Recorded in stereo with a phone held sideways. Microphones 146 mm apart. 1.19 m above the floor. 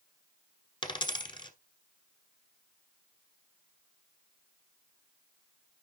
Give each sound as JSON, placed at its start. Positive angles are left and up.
{"t": 0.8, "sound": "a dropped coin", "side_deg": 35, "distance_m": 1.4}